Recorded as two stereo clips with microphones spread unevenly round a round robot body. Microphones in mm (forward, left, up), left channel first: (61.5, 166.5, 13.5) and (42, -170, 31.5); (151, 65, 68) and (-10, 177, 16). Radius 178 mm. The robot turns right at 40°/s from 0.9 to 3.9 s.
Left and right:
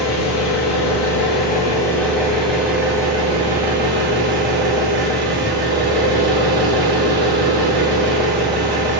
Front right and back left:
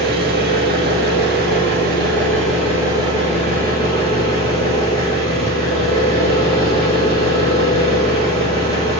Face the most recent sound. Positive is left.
turn(degrees=-110)